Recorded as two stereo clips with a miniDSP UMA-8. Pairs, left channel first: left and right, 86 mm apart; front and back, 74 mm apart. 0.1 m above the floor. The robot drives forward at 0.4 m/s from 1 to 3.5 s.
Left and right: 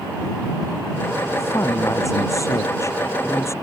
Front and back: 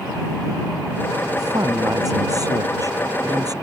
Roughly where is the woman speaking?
Behind left.